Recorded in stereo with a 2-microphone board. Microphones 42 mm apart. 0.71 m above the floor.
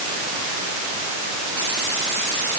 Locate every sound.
Only background noise.